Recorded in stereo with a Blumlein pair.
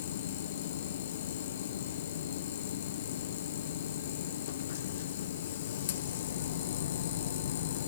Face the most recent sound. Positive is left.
turn(degrees=60)